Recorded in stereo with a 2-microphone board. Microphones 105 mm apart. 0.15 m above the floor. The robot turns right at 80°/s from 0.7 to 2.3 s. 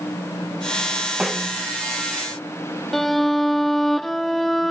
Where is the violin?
Centre (ahead or behind).